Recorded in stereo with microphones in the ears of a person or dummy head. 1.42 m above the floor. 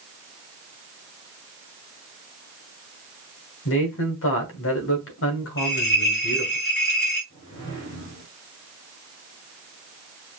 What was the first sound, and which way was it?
A man speaking, 70° left (ahead or behind).